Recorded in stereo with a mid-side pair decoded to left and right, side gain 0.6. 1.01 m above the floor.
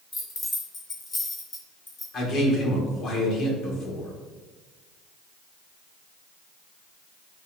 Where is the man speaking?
50° left, 1.4 m.